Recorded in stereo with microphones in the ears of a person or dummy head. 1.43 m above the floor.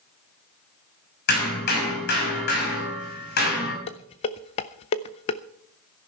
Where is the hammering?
55° left (ahead or behind), 5 m.